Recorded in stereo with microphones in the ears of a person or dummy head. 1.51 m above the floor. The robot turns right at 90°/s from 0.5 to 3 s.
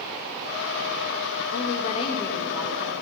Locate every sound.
1.5 s a woman speaking: 100° left, 1.9 m; by 2.9 s 135° right, 1.9 m